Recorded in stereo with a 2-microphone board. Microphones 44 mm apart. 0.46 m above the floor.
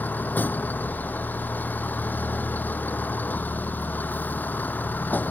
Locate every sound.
0.0 s a vehicle: 40° left (ahead or behind)